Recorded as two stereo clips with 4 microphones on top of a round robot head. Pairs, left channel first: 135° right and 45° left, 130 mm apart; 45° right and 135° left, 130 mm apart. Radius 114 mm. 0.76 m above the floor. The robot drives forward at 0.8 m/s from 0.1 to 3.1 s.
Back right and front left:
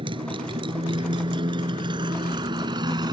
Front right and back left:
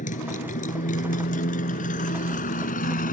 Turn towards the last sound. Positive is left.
turn(degrees=-15)